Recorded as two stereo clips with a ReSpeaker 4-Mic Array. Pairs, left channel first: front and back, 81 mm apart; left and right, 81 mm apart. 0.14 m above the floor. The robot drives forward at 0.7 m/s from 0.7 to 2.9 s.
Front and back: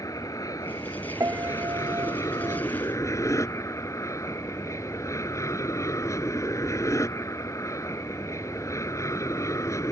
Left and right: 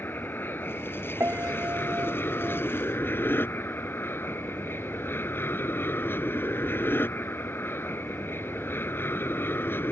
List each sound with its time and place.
0.0 s an aircraft: 30° left; by 9.9 s 35° left
1.2 s a piano: 140° right; by 2.6 s 150° right